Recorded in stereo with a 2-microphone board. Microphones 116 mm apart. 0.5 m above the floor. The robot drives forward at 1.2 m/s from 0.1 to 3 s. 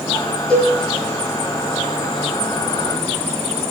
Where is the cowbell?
10° left (ahead or behind), 9 m.